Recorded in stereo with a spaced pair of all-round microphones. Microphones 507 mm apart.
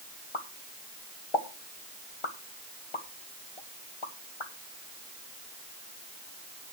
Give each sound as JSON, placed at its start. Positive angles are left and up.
{"t": 0.3, "sound": "a pop", "side_deg": 60, "distance_m": 1.4}